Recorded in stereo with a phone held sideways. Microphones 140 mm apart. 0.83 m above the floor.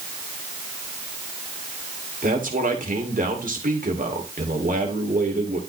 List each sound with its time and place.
2.2 s a man speaking: 70° right (ahead or behind), 2.5 m